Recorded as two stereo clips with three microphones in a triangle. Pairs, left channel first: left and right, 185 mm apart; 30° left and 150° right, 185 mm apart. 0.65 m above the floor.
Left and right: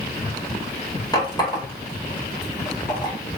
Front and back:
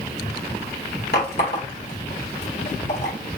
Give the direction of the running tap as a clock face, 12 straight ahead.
11 o'clock.